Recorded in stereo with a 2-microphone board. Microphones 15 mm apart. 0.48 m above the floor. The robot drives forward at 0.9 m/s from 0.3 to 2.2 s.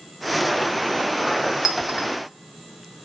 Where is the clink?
35° right (ahead or behind), 1.7 m; by 2.1 s 30° right (ahead or behind), 2 m.